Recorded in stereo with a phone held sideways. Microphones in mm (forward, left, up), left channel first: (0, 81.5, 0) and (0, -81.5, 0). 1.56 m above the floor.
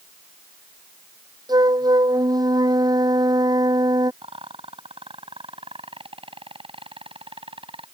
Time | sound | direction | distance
1.5 | a flute | 25° right (ahead or behind) | ?
4.2 | a rattle | 35° right (ahead or behind) | ?